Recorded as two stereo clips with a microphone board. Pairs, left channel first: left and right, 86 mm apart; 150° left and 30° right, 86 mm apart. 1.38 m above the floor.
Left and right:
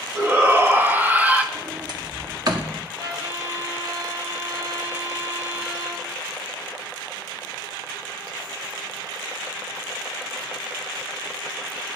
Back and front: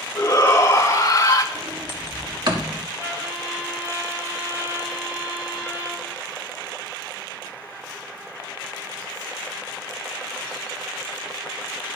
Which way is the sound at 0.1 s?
150° right.